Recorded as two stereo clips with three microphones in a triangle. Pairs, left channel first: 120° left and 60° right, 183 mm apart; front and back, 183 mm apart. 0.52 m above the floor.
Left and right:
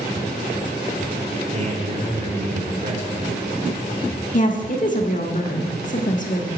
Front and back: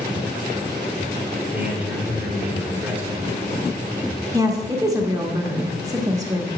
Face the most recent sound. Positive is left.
turn(degrees=120)